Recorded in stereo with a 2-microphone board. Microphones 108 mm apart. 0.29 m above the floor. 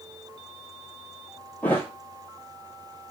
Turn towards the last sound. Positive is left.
turn(degrees=15)  # may be behind; listen again after turning